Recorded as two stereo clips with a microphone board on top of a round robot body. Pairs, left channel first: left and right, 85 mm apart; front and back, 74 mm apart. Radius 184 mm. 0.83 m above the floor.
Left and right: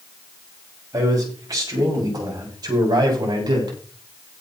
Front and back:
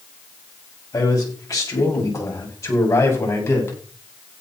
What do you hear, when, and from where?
0.9 s a man speaking: 40° right, 7.5 m; by 3.8 s 55° right, 8 m